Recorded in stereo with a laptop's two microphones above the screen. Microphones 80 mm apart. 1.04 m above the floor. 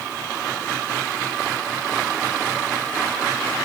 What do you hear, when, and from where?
Only background noise.